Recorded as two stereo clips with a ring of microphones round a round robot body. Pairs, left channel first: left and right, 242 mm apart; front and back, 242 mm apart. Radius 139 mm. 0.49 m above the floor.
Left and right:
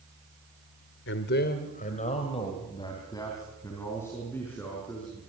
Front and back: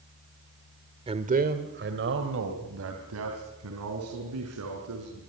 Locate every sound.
1.1 s a man speaking: 115° left, 1.6 m; by 5.2 s 175° left, 6.5 m